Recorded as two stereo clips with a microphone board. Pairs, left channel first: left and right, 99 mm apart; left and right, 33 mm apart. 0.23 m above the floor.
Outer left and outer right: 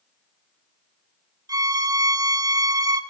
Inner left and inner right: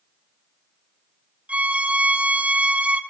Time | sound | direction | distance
1.5 | a violin | 40° right (ahead or behind) | 1.3 m